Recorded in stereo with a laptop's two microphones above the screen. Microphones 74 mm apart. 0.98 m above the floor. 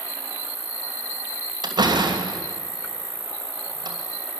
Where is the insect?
40° left (ahead or behind), 1.7 m.